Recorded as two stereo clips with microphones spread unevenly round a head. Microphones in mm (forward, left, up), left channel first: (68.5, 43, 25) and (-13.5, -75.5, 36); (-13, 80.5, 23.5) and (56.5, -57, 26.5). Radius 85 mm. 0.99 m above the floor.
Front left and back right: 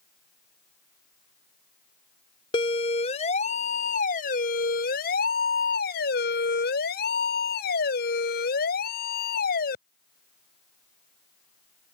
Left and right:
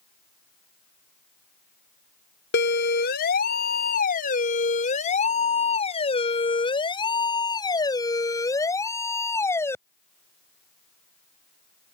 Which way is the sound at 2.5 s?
110° left.